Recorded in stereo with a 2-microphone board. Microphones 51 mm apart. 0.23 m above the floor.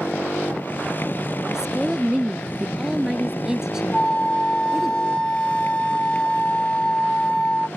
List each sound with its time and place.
0.0 s a motorcycle: 40° left (ahead or behind)
1.5 s a woman speaking: 10° right (ahead or behind)
3.9 s a flute: 15° left (ahead or behind)